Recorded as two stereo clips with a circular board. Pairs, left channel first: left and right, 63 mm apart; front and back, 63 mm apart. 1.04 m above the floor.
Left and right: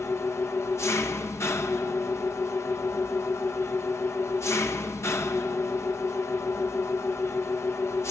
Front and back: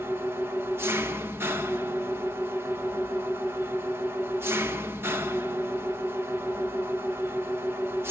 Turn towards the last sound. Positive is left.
turn(degrees=130)